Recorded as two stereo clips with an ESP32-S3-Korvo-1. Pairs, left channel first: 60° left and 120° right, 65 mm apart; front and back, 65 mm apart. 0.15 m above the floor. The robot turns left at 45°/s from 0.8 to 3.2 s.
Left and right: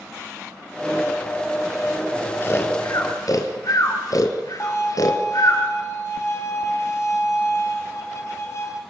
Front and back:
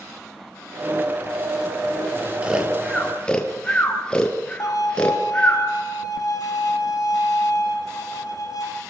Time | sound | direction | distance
2.4 | snoring | 110° left | 3 m
4.6 | a violin | 20° left | 3.5 m